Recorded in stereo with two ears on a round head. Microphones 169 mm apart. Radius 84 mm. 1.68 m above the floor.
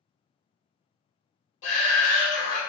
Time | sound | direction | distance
1.6 | a shout | 70° left (ahead or behind) | 1.1 m